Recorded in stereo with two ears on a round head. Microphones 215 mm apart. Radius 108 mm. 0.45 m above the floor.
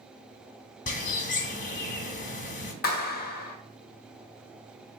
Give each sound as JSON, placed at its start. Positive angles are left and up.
{"t": 0.9, "sound": "a bird", "side_deg": 35, "distance_m": 0.7}
{"t": 2.8, "sound": "a clap", "side_deg": 40, "distance_m": 0.6}